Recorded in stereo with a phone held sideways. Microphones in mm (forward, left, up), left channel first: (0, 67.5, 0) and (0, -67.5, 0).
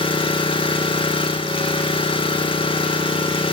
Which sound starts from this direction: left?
An engine running, at 0.0 s.